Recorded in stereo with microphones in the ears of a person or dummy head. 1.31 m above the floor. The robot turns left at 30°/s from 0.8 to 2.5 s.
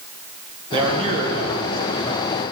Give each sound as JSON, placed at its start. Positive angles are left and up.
{"t": 0.7, "sound": "a man speaking", "azimuth_deg": -30, "distance_m": 1.5}